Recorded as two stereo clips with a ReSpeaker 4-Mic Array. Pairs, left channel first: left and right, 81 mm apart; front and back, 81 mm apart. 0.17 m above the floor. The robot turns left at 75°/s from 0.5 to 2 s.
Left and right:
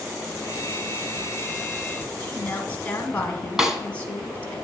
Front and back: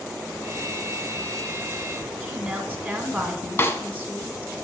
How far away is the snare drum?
About 0.7 m.